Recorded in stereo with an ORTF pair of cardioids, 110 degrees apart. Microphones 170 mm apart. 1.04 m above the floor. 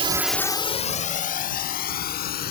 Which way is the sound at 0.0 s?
35° right.